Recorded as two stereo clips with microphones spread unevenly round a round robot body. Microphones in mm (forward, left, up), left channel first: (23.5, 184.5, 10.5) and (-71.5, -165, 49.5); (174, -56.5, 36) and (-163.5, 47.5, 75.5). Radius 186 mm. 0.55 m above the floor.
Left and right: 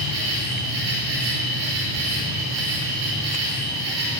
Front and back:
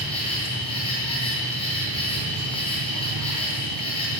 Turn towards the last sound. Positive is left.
turn(degrees=-95)